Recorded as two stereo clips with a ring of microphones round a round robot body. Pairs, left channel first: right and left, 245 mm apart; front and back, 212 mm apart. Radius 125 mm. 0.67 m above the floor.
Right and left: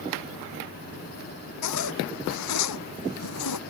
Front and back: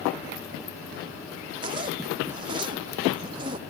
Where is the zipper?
105° right.